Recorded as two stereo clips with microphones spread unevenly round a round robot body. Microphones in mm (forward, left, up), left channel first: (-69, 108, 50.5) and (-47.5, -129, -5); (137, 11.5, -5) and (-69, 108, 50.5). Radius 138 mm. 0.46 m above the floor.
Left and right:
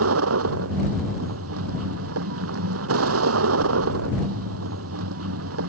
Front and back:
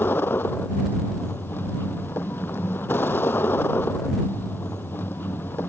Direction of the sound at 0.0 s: 110° right.